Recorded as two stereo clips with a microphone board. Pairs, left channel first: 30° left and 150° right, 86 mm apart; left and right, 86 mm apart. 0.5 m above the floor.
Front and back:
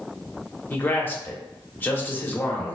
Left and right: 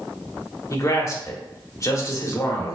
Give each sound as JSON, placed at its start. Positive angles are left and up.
{"t": 0.7, "sound": "a man speaking", "azimuth_deg": 80, "distance_m": 0.9}